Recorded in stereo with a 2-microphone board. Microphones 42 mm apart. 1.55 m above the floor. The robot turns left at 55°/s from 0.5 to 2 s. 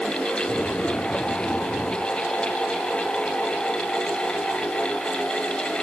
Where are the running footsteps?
No running footsteps in this recording.